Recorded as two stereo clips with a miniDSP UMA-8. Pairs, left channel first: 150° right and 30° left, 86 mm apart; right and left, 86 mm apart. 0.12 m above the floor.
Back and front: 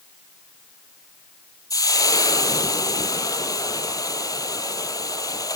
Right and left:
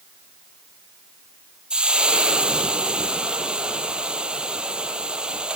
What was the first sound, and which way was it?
Frying, 170° left.